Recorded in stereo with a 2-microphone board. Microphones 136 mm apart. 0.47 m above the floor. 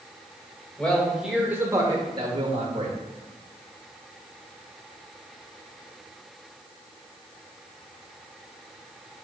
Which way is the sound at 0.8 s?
10° left (ahead or behind).